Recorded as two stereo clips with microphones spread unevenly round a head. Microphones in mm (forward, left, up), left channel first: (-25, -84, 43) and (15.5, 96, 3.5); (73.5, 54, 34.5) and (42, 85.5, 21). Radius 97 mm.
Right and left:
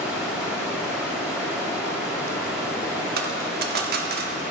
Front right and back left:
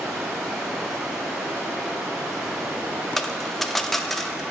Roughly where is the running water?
Behind.